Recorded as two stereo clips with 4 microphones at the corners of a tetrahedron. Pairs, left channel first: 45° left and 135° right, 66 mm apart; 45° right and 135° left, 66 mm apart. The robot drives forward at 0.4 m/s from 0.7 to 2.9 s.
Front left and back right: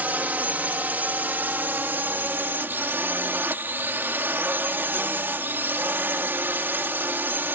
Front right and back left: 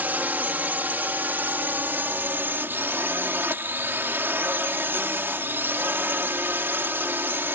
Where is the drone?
Straight behind.